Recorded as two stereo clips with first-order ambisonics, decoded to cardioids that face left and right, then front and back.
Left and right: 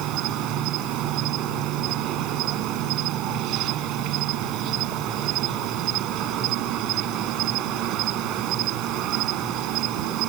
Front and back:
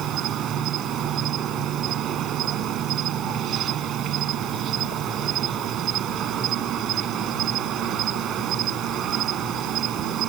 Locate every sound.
0.0 s an insect: 130° right